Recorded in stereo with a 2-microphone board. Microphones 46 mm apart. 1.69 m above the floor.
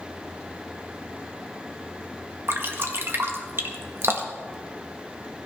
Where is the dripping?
60° right (ahead or behind), 1.5 m.